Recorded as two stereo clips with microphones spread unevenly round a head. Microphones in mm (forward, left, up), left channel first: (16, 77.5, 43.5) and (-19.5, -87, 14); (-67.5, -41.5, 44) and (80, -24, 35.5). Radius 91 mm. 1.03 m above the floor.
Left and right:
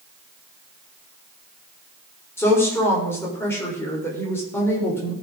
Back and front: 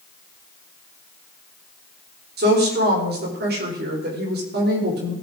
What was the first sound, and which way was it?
A woman speaking, straight ahead.